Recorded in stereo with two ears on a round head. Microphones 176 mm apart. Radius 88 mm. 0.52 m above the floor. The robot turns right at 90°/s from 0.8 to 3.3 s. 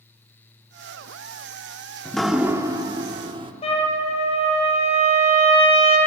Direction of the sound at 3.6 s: 30° left (ahead or behind).